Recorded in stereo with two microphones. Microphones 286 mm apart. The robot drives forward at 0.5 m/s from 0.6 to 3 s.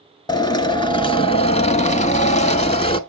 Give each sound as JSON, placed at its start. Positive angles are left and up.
{"t": 0.3, "sound": "a drill", "side_deg": 15, "distance_m": 1.0}